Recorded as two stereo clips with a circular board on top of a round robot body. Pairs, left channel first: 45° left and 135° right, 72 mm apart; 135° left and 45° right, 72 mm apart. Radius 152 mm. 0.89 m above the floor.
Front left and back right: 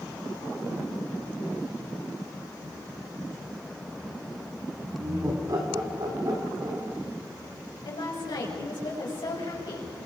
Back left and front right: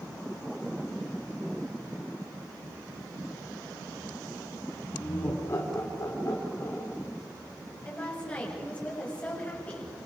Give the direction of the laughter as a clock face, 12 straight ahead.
6 o'clock.